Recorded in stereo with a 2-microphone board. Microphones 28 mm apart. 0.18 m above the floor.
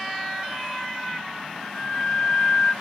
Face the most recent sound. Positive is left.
turn(degrees=15)  # may be behind; listen again after turning